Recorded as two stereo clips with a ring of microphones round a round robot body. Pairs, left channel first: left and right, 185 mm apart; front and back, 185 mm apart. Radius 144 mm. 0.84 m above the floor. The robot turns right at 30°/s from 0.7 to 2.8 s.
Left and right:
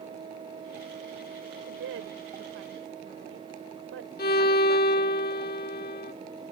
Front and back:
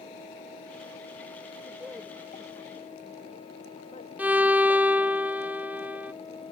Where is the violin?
100° left.